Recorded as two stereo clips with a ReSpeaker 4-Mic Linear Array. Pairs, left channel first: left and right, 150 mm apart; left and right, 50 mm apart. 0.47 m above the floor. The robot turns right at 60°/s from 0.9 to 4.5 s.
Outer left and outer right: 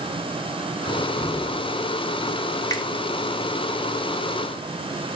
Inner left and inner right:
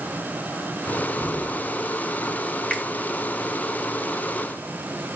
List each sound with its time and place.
0.9 s a cupboard door: 20° left, 3.5 m; by 1.6 s 65° left, 3.5 m
2.7 s a finger snap: 25° left (ahead or behind), 2 m; by 2.9 s 30° left (ahead or behind), 2 m